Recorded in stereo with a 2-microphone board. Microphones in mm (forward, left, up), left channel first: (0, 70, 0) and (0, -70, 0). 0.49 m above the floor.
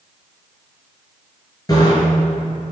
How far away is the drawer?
I don't hear a drawer.